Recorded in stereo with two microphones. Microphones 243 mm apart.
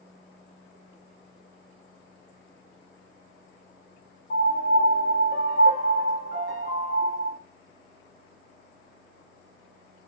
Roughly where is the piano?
Left.